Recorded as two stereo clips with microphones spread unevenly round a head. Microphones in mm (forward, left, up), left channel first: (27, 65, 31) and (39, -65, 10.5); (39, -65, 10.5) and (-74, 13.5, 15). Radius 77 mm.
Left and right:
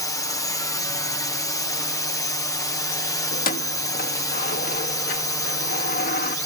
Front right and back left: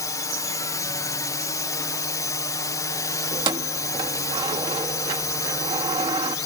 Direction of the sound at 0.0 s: 30° left.